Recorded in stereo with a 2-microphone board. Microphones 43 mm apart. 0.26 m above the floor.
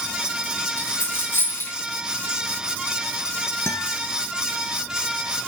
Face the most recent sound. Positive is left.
turn(degrees=75)  # may be behind; listen again after turning